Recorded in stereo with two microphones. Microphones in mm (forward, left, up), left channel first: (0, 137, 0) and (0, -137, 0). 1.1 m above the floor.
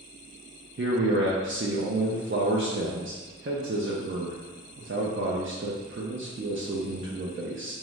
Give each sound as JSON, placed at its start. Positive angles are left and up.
{"t": 0.8, "sound": "a man speaking", "side_deg": -45, "distance_m": 0.5}